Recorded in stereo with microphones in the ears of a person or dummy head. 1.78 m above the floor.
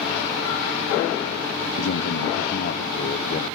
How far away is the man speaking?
About 1.1 m.